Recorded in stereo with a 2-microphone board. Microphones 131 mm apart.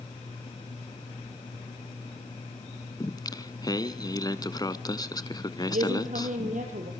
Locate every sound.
3.0 s singing: 30° left (ahead or behind), 0.9 m
5.7 s a woman speaking: 80° right, 5 m